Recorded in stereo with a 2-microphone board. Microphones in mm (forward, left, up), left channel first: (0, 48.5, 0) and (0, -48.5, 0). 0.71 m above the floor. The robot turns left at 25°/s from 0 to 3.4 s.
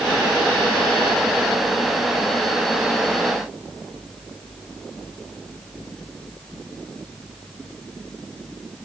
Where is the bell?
I don't hear a bell.